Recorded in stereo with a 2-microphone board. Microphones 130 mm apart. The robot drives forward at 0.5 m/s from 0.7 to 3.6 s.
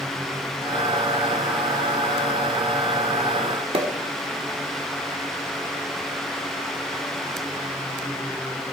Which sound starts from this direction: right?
A pop, at 3.7 s.